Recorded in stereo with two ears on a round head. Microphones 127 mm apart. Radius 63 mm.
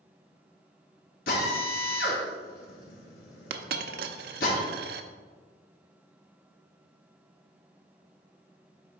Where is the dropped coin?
70° right (ahead or behind), 0.6 m.